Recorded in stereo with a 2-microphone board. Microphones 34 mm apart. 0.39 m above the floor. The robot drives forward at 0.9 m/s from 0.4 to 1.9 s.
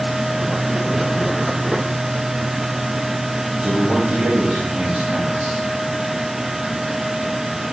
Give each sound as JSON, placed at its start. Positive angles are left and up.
{"t": 3.6, "sound": "a man speaking", "side_deg": -55, "distance_m": 7.0}